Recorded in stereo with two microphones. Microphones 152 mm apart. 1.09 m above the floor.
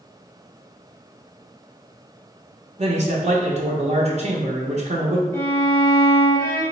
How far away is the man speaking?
About 0.6 m.